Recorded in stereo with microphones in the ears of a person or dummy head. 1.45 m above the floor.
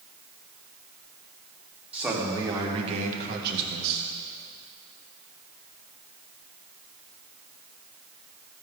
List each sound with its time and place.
1.9 s a man speaking: 5° right (ahead or behind), 2 m; by 4.0 s 75° right (ahead or behind), 1.7 m